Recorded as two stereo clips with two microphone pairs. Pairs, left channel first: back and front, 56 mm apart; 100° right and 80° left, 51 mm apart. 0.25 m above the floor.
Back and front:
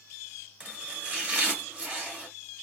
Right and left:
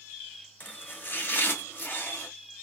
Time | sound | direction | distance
0.6 | chopping | 60° right | 2.0 m